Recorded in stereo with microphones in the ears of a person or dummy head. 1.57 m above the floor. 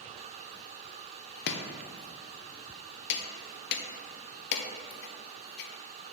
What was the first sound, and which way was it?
Chopping, 60° left (ahead or behind).